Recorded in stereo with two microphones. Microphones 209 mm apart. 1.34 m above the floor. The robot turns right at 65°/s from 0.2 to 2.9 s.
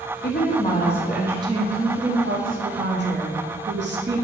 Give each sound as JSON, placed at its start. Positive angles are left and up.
{"t": 0.2, "sound": "a woman speaking", "azimuth_deg": 125, "distance_m": 0.9}